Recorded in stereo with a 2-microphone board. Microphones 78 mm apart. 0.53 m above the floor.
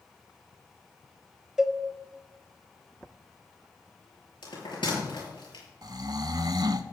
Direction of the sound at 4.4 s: 90° left.